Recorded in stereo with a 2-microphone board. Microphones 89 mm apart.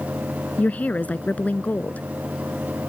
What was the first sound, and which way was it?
A woman speaking, 15° left (ahead or behind).